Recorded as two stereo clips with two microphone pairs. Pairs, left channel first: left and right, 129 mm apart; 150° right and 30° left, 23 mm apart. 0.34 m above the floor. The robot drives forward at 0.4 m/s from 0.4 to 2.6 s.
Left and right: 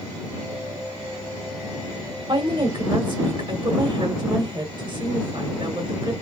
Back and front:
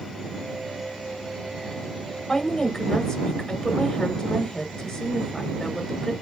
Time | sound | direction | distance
2.3 | a woman speaking | 105° right | 1.2 m